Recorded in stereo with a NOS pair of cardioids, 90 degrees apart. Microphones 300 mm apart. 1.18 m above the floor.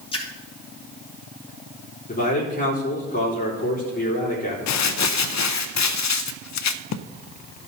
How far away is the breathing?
I don't hear breathing.